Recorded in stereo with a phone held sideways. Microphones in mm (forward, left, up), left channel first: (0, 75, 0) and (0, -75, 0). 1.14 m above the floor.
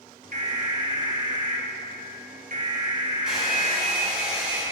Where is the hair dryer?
5° right (ahead or behind), 3.5 m.